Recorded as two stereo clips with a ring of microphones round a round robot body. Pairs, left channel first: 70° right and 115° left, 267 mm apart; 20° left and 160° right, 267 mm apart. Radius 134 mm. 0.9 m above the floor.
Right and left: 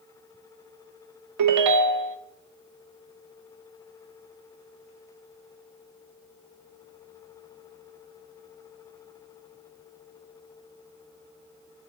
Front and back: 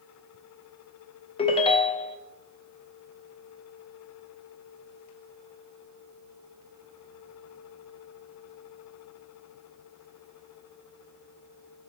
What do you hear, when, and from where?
1.4 s a ringtone: 90° left, 0.5 m